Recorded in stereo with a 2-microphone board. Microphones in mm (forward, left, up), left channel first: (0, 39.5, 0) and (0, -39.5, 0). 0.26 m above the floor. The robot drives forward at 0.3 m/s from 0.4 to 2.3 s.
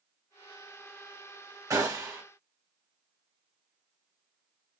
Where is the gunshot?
45° right (ahead or behind), 1.4 m.